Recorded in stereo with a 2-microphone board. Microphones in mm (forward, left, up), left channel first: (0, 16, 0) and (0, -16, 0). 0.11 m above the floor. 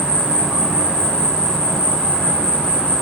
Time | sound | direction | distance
0.0 | an insect | 40° left (ahead or behind) | 1.8 m